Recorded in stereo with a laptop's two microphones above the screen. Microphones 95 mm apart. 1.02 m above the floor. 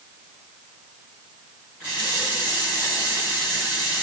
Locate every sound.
1.8 s a running tap: 10° right (ahead or behind), 6.5 m